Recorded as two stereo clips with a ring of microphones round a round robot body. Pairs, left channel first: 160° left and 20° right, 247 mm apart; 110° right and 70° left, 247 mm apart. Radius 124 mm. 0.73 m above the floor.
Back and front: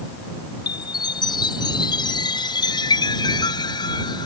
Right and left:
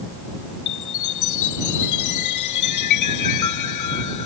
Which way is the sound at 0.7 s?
130° right.